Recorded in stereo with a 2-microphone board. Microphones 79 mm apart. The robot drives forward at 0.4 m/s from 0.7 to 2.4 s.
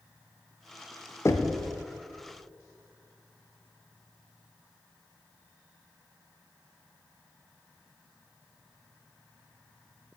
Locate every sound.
1.2 s knocking: 35° left (ahead or behind), 0.5 m; by 1.6 s 30° left (ahead or behind), 0.6 m